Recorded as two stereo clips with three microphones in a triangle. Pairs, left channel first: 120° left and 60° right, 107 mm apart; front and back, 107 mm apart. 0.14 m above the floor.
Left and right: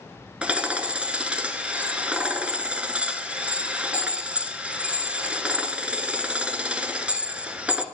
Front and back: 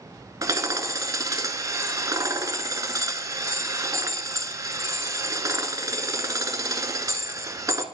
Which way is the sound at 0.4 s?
135° right.